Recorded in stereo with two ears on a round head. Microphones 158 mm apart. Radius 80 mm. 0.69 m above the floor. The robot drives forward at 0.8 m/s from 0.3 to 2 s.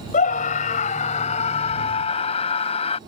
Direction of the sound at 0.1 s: 50° left (ahead or behind).